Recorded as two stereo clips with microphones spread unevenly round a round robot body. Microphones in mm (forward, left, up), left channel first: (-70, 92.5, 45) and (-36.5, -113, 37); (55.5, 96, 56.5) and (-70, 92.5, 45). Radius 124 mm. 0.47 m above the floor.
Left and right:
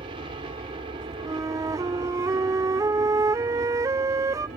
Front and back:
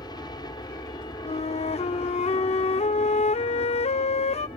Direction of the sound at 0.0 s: 35° right.